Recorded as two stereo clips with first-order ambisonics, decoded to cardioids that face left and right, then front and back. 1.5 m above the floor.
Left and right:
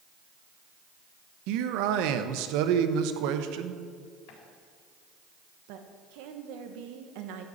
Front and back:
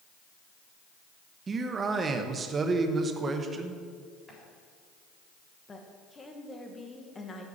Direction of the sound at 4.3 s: 85° left.